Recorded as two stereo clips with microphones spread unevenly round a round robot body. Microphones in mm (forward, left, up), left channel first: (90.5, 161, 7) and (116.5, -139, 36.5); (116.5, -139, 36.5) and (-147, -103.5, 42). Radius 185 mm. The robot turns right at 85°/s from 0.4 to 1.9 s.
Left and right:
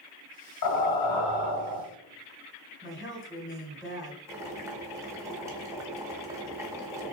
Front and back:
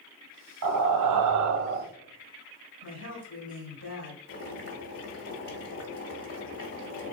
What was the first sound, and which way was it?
Breathing, 135° left.